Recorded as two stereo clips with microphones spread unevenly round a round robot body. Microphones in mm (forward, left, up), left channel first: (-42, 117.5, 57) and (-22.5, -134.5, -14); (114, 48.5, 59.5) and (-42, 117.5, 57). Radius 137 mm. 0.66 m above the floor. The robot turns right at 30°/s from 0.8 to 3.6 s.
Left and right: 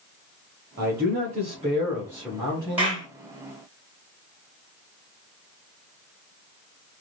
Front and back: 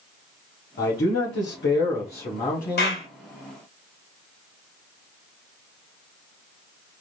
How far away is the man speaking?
About 1.5 m.